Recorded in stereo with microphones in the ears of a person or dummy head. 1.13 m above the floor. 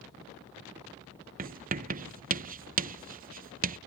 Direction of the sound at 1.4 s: 40° right (ahead or behind).